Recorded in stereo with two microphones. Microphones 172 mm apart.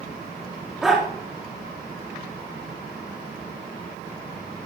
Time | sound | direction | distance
0.8 | a dog barking | centre (ahead or behind) | 7 m